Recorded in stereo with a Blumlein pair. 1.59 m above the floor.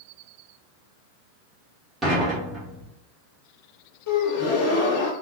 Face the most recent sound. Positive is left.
turn(degrees=45)